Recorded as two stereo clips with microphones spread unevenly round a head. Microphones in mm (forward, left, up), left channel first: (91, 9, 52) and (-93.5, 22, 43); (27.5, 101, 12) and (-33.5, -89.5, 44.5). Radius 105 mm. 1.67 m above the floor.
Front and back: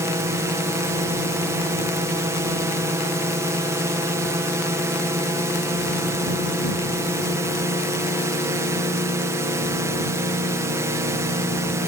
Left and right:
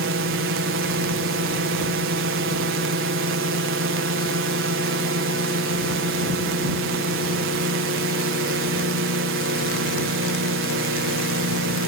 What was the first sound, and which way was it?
A drone, 110° right.